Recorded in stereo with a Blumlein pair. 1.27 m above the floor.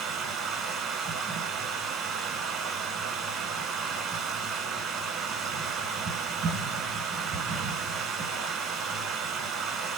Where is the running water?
25° right, 1.0 m.